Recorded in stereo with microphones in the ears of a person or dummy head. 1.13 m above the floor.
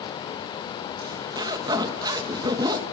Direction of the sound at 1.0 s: 20° right (ahead or behind).